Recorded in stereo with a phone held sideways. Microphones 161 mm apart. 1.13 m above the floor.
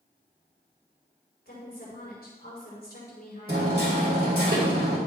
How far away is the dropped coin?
I don't hear a dropped coin.